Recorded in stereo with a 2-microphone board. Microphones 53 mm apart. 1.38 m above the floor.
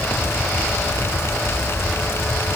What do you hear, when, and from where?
Only background noise.